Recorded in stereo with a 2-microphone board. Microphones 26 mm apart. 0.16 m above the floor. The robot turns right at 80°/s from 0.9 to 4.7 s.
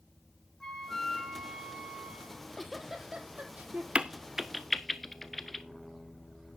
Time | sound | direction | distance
0.6 | a flute | 160° left | 2 m
2.3 | a giggle | 35° left (ahead or behind) | 1.7 m
4.0 | a crack | 40° right (ahead or behind) | 0.8 m